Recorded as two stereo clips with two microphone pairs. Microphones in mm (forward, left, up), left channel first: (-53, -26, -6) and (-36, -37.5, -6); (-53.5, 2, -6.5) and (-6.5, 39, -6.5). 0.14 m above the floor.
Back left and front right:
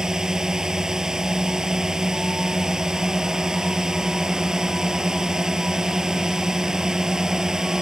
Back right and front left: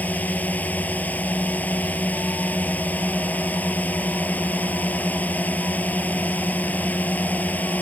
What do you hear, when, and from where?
0.0 s a drone: 85° right